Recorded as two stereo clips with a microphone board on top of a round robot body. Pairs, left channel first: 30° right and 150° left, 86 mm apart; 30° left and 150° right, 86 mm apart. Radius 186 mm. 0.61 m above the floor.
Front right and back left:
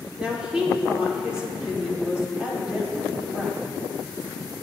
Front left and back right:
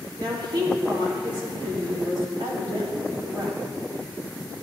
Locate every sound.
0.2 s a woman speaking: 130° right, 3 m